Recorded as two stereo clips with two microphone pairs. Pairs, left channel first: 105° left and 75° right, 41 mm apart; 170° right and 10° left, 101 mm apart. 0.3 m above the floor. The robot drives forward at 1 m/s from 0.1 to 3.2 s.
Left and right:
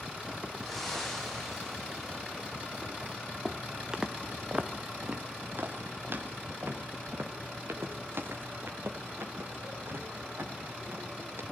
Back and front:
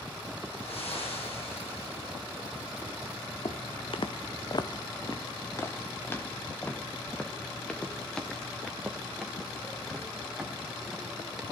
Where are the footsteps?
160° right, 1.4 m; by 11.4 s 80° right, 5.5 m.